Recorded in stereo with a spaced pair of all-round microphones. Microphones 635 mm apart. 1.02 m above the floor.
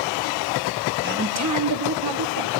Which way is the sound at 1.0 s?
15° right (ahead or behind).